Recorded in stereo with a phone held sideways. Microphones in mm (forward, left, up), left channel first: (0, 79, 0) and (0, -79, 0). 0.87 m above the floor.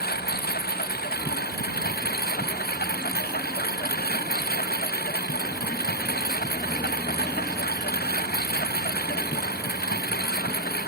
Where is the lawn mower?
80° left.